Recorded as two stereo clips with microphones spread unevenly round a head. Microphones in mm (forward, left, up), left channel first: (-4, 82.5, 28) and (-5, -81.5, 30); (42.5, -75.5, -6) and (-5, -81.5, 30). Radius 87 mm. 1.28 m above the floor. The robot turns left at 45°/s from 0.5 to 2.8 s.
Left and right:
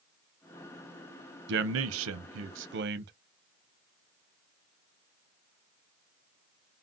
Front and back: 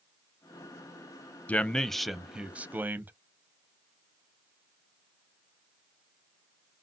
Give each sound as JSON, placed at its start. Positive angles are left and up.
{"t": 1.5, "sound": "a man speaking", "azimuth_deg": -65, "distance_m": 0.5}